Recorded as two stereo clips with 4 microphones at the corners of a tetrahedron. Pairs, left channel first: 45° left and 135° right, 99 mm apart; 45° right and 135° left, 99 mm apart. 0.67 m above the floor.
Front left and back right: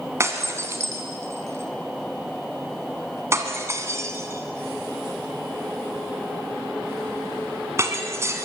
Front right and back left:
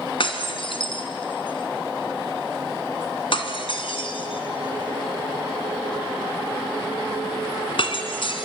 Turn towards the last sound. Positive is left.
turn(degrees=-75)